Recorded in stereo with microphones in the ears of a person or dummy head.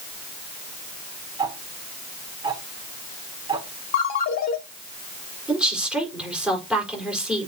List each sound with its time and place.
1.4 s ticking: 20° right (ahead or behind), 1.8 m
3.9 s a ringtone: 45° left (ahead or behind), 1.4 m
5.5 s a woman speaking: 5° right (ahead or behind), 4.5 m